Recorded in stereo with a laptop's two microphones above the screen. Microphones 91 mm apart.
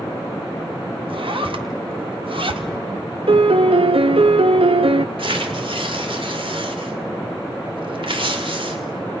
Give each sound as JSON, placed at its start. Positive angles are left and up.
{"t": 1.1, "sound": "a zipper", "side_deg": -70, "distance_m": 1.7}
{"t": 3.3, "sound": "a piano", "side_deg": -75, "distance_m": 0.7}
{"t": 5.2, "sound": "tearing paper", "side_deg": -70, "distance_m": 2.0}